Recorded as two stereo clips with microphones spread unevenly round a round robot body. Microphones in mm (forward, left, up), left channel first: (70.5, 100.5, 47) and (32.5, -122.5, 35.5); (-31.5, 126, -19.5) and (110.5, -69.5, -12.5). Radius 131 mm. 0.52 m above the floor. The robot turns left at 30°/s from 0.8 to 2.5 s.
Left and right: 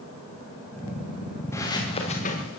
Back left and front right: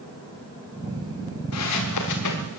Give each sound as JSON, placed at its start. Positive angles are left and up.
{"t": 1.5, "sound": "footsteps", "azimuth_deg": 160, "distance_m": 4.5}